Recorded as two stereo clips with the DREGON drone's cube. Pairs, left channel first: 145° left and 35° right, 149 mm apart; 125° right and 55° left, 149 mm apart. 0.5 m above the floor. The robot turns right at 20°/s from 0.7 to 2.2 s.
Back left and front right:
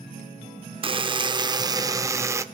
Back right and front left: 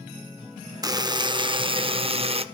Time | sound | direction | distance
0.8 | a buzzer | straight ahead | 0.6 m